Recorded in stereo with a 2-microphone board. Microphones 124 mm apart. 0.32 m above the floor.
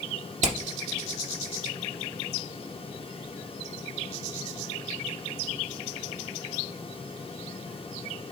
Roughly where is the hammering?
Right.